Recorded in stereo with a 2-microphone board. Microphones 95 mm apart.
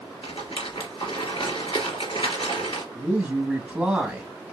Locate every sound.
0.2 s a rattle: 70° left (ahead or behind), 3 m
3.0 s a man speaking: 10° right (ahead or behind), 1.9 m